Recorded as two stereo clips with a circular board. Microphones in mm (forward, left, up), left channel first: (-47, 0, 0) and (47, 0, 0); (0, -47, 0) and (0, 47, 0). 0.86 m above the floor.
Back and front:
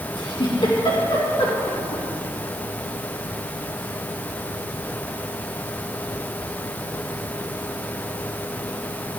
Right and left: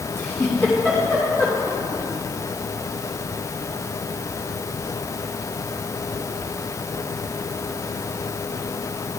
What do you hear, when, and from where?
0.2 s a giggle: 155° right, 3 m